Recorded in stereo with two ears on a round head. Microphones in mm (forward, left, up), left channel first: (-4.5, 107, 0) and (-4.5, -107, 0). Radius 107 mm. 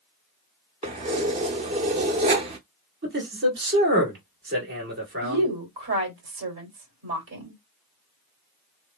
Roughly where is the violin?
No violin in this recording.